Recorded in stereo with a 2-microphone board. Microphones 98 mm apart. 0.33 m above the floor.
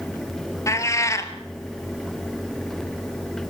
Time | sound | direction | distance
0.7 | a cat meowing | 30° left (ahead or behind) | 1.4 m